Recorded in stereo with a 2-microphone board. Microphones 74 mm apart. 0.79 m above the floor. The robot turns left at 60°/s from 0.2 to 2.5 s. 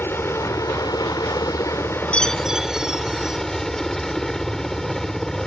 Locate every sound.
0.0 s a helicopter: 145° left; by 5.5 s 10° left
2.1 s a chime: 15° left (ahead or behind); by 3.4 s 5° right (ahead or behind)